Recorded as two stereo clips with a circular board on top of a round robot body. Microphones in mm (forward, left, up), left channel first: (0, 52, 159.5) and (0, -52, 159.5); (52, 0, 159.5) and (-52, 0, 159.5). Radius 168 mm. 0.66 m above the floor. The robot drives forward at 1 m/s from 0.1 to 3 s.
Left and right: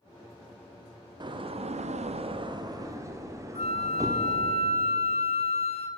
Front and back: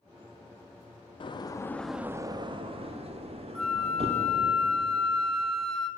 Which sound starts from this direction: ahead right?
A door slam, at 1.2 s.